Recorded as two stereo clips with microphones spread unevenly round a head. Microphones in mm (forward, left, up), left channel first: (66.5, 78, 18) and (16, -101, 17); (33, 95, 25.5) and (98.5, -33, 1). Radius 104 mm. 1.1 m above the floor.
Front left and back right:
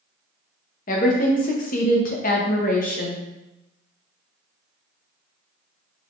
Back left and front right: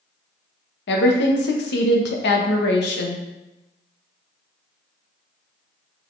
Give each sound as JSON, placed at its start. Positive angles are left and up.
{"t": 0.9, "sound": "a woman speaking", "azimuth_deg": 125, "distance_m": 0.8}